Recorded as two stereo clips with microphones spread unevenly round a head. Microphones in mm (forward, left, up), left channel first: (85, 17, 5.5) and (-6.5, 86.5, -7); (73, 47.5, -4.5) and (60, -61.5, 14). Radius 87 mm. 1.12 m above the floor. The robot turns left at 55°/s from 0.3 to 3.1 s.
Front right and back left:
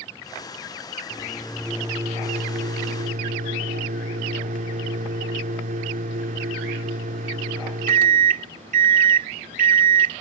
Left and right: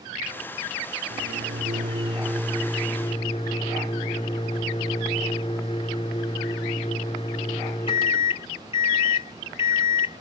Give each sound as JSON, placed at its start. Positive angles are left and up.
{"t": 1.1, "sound": "a microwave", "azimuth_deg": -105}